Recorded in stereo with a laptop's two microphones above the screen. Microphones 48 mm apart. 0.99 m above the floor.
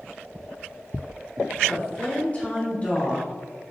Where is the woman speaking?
30° left (ahead or behind), 1.0 m.